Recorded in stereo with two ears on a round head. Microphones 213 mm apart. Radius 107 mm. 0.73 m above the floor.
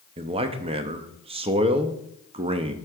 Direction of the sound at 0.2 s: 25° right (ahead or behind).